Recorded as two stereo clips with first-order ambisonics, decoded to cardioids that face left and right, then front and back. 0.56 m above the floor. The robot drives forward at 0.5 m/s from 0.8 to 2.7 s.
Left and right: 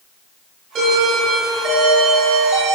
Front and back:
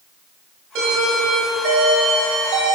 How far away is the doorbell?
About 5.5 m.